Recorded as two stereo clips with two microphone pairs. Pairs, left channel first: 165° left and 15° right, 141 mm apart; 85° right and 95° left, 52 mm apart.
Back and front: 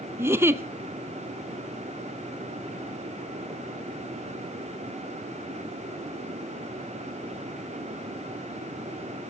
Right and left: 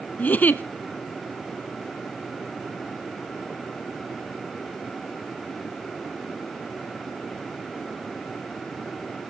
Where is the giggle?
80° right, 0.6 m.